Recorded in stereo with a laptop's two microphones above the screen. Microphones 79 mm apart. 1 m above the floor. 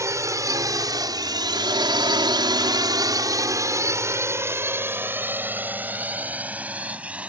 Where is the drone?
40° right (ahead or behind); by 7.3 s 15° right (ahead or behind).